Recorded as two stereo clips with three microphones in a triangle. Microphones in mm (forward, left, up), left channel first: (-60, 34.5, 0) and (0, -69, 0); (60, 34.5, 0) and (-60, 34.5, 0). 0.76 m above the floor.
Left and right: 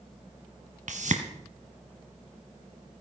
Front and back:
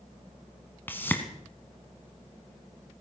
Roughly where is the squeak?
I don't hear a squeak.